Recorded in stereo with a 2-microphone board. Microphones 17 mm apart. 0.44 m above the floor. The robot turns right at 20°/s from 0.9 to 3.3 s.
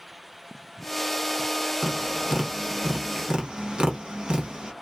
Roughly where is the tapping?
Right.